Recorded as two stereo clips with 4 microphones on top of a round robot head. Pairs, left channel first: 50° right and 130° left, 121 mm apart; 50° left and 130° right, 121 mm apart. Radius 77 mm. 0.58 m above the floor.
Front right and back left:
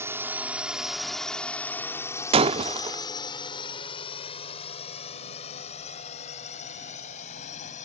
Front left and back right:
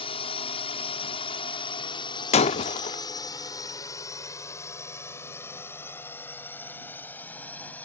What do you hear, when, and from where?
0.0 s a drone: 65° left; by 7.8 s 25° right
2.3 s breaking glass: 85° left